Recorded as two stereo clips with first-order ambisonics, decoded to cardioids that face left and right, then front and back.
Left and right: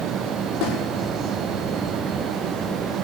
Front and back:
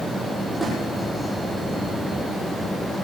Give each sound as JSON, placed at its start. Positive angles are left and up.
{"t": 0.6, "sound": "a snare drum", "azimuth_deg": 90, "distance_m": 7.0}